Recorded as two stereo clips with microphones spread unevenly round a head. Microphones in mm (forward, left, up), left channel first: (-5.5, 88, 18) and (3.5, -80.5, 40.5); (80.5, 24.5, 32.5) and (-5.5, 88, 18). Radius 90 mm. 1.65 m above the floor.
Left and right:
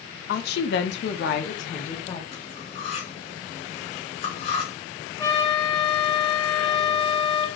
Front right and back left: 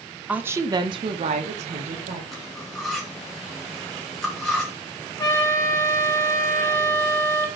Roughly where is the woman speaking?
Ahead left.